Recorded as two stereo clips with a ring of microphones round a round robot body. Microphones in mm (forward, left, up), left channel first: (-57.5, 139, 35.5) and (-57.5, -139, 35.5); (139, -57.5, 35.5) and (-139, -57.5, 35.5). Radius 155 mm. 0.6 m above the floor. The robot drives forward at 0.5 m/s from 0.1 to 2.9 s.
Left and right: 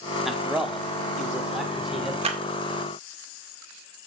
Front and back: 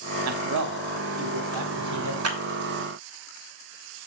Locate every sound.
0.2 s a man speaking: straight behind, 1.1 m
2.2 s a clap: 155° right, 1.7 m